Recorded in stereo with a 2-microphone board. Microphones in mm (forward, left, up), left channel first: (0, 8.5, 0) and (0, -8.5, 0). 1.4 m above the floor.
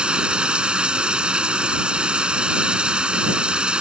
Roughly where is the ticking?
I don't hear ticking.